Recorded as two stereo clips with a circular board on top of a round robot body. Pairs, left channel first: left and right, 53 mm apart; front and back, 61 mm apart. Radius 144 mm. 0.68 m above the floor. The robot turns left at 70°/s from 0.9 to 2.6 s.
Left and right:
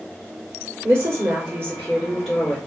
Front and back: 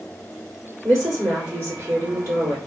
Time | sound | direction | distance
0.8 | a woman speaking | 75° right | 1.9 m